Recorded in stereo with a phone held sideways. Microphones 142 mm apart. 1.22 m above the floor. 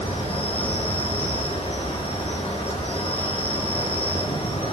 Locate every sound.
0.0 s an insect: 40° left (ahead or behind), 1.0 m